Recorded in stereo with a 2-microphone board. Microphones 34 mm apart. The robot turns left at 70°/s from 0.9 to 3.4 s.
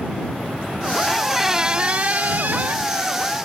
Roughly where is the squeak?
Ahead.